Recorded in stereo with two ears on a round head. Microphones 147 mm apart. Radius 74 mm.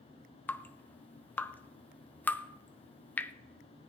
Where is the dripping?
10° left (ahead or behind), 0.6 m.